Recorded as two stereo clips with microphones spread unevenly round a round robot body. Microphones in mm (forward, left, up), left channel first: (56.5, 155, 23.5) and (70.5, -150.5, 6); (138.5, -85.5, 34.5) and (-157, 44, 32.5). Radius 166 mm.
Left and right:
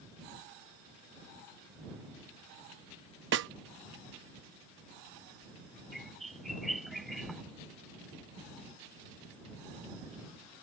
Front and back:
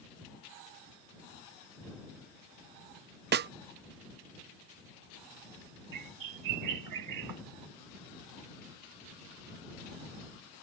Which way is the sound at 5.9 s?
Straight behind.